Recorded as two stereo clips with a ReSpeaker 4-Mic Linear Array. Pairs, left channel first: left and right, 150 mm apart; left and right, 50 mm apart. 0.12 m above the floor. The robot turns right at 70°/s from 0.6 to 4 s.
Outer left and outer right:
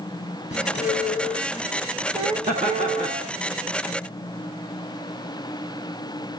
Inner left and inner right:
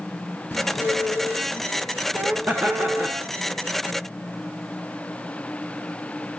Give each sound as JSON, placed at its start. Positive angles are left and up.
{"t": 0.5, "sound": "a squeak", "azimuth_deg": 110, "distance_m": 1.5}
{"t": 2.5, "sound": "laughter", "azimuth_deg": -100, "distance_m": 1.7}